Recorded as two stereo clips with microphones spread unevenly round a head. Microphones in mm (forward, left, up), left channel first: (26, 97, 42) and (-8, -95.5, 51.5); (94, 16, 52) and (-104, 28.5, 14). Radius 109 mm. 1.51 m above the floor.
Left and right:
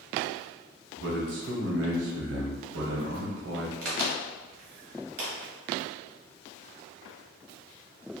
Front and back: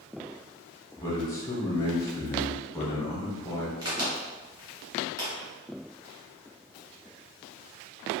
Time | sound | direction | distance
1.0 | a man speaking | 75° right | 0.7 m
3.8 | a crack | 100° right | 1.2 m